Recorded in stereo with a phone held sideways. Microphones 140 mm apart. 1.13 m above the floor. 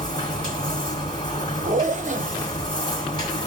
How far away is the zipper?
About 0.6 m.